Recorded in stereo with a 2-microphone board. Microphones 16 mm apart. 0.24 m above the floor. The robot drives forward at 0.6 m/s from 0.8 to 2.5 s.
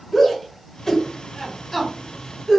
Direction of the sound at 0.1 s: 20° left (ahead or behind).